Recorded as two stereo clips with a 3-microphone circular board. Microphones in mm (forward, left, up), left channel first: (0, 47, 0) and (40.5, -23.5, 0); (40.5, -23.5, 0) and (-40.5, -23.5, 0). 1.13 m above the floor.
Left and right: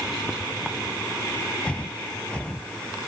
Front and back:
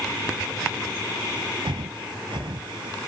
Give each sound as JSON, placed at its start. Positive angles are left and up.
{"t": 1.6, "sound": "breathing", "azimuth_deg": -165}